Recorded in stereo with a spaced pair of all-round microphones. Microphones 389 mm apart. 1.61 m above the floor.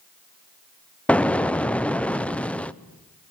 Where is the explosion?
5° left (ahead or behind), 0.5 m.